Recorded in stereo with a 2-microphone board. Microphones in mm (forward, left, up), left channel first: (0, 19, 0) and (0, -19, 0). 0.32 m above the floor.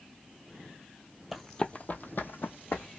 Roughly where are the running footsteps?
Centre.